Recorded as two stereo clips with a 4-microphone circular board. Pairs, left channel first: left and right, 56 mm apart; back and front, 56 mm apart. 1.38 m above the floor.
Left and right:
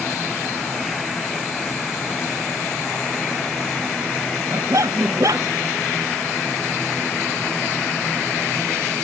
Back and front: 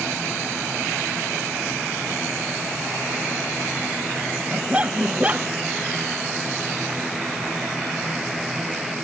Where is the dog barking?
70° right.